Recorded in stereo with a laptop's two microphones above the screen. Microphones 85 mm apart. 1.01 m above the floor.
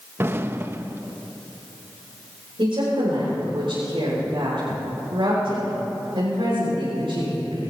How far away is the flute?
No flute in this recording.